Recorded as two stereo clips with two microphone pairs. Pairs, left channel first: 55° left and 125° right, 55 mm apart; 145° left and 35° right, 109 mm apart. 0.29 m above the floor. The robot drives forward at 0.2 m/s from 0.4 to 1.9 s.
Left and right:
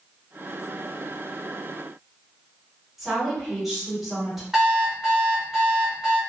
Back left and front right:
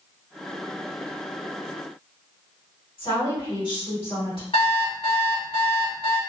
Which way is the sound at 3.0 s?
150° left.